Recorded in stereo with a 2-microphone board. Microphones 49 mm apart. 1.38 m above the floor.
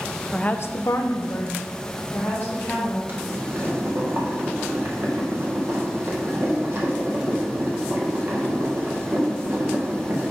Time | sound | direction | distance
0.3 | a woman speaking | 15° left (ahead or behind) | 0.7 m
3.1 | boiling | 50° right (ahead or behind) | 1.6 m